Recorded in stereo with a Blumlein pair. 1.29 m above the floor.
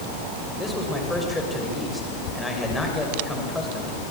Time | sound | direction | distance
0.6 | a man speaking | 5° left | 6.5 m